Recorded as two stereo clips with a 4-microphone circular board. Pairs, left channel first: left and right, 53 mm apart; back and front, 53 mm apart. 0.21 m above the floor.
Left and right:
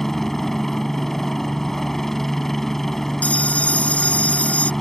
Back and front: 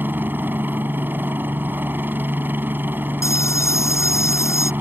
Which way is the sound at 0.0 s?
10° left.